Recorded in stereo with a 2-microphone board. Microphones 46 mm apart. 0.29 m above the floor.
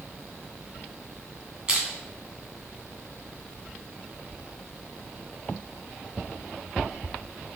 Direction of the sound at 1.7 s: 20° right (ahead or behind).